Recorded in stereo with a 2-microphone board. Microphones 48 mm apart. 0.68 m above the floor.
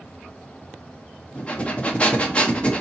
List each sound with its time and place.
1.4 s breathing: 25° left (ahead or behind), 1.2 m